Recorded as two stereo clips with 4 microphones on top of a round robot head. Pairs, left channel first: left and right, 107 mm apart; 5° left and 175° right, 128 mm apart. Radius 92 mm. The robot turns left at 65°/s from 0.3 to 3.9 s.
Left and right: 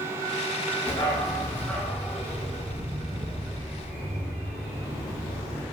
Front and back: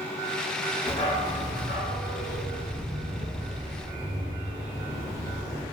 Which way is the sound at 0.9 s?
65° left.